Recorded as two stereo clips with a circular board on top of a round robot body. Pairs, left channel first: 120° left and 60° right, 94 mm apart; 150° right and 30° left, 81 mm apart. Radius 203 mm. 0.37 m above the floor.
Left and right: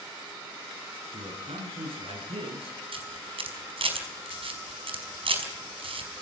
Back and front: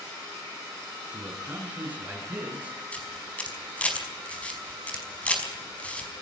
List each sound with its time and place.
1.1 s a man speaking: 45° right, 7 m
2.9 s a camera shutter: 75° right, 5 m